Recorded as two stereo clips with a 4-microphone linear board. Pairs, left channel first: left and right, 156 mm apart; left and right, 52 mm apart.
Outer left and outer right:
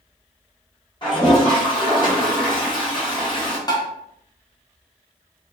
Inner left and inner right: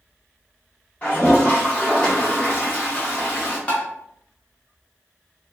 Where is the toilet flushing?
30° left (ahead or behind), 1.1 m.